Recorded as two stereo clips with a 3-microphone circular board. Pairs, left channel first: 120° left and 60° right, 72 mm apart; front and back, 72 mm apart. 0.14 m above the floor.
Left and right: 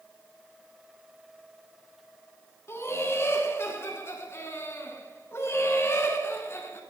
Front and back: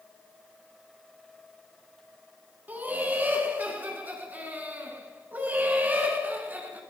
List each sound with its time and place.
2.7 s laughter: 130° left, 1.6 m